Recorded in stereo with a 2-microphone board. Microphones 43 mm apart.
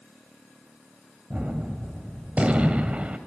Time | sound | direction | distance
1.3 | a gunshot | 30° right (ahead or behind) | 1.8 m